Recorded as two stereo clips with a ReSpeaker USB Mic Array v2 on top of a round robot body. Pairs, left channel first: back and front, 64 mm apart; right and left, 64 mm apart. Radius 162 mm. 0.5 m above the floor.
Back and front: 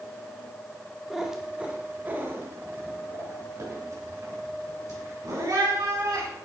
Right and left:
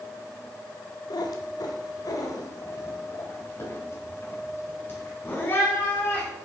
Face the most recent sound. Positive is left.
turn(degrees=-30)